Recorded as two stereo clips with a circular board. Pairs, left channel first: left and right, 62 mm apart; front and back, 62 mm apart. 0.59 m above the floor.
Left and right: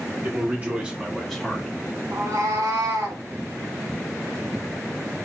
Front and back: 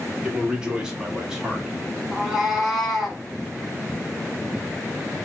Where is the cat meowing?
90° right, 0.8 m.